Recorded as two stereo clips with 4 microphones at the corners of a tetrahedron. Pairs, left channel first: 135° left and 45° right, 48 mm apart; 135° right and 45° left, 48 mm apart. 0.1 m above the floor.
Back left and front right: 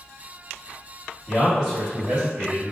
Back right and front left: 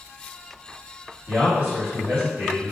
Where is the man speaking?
20° left, 1.5 m.